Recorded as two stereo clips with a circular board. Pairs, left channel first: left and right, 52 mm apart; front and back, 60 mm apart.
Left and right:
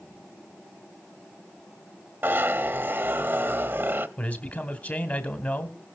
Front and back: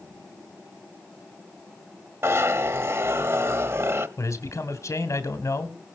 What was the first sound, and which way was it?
A zipper, 135° right.